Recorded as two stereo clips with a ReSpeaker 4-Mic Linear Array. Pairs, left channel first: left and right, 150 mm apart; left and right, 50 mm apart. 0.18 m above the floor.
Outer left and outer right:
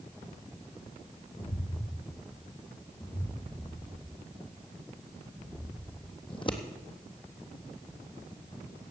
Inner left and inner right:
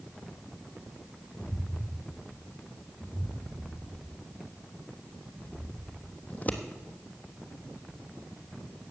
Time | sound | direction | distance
1.4 | footsteps | 60° left (ahead or behind) | 1.6 m
3.4 | footsteps | 60° right (ahead or behind) | 2.5 m
6.3 | scissors | 35° left (ahead or behind) | 1.1 m